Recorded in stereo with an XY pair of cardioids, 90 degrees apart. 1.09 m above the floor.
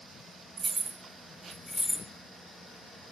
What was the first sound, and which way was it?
Keys jangling, 55° right.